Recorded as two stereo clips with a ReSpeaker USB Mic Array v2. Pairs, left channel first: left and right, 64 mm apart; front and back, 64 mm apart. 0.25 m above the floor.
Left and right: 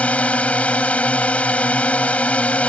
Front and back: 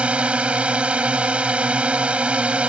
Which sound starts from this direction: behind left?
A drone, at 0.0 s.